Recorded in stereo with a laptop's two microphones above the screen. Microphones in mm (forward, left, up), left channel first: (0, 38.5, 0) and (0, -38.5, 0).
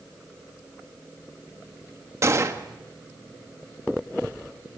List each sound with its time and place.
2.2 s a gunshot: 40° right (ahead or behind), 1.3 m